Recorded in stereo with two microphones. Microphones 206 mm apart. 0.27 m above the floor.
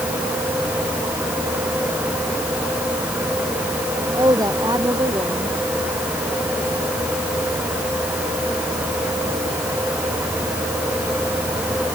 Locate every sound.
4.1 s a woman speaking: 20° right (ahead or behind)